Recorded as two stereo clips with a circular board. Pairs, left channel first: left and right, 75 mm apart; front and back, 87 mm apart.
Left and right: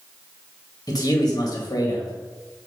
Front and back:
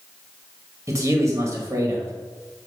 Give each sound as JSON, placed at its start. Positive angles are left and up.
{"t": 0.9, "sound": "a man speaking", "azimuth_deg": 125, "distance_m": 2.0}